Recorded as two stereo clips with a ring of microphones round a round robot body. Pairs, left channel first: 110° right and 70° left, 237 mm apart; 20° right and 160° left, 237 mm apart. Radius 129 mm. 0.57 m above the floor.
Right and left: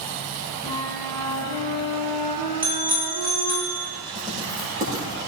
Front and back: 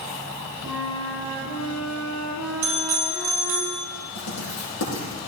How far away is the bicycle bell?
About 4.5 m.